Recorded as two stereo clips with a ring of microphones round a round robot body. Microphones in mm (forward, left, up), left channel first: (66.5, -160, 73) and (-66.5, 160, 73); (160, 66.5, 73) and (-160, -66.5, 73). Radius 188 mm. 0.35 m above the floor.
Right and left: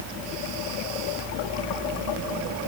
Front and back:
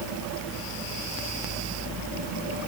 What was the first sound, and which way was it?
Only background noise.